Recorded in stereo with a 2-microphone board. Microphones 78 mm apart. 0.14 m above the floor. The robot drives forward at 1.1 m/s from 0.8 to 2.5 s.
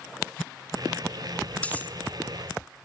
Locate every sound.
1.6 s cutlery clinking: 20° left (ahead or behind), 0.8 m